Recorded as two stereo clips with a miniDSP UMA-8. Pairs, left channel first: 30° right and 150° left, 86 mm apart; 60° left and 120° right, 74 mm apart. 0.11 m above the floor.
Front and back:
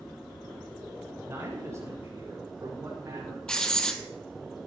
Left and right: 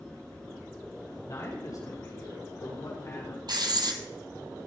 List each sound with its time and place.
1.2 s a man speaking: 95° left, 4.5 m; by 3.4 s 100° left, 5.5 m
3.5 s writing: 110° right, 1.3 m